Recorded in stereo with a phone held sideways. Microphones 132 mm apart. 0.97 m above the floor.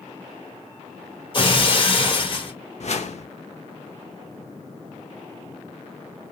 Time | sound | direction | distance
1.3 | breaking glass | 40° left (ahead or behind) | 1.9 m
2.8 | a whoosh | 60° left (ahead or behind) | 0.8 m